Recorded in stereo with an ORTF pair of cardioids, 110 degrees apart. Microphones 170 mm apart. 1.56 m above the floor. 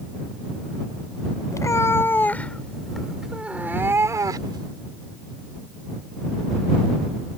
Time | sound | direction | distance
1.5 | a cat meowing | 20° left | ?